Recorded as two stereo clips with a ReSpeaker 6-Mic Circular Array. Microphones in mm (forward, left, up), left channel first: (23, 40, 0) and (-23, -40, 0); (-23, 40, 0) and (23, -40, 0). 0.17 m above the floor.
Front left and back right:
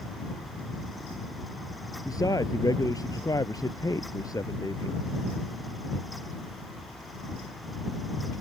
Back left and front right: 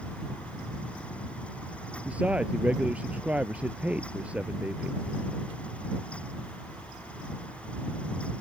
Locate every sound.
2.0 s a man speaking: 15° left